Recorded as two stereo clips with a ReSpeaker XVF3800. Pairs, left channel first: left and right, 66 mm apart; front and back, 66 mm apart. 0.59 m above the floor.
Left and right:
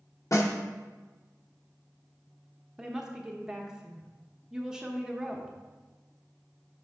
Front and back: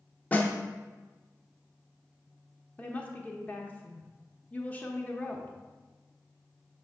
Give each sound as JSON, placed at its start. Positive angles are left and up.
{"t": 0.3, "sound": "a snare drum", "azimuth_deg": 65, "distance_m": 0.6}
{"t": 2.8, "sound": "a woman speaking", "azimuth_deg": -25, "distance_m": 0.6}